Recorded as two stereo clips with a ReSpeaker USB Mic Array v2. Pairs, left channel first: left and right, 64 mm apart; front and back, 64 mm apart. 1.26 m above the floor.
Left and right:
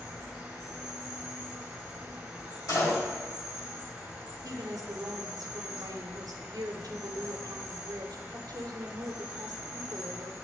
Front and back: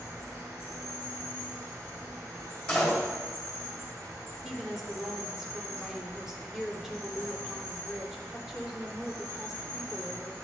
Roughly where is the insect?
Behind.